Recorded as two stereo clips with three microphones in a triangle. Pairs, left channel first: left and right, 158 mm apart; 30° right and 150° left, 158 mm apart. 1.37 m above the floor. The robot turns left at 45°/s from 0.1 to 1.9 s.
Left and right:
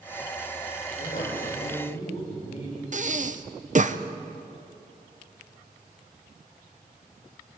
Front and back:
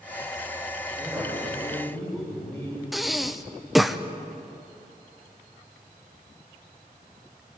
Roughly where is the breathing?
Behind right.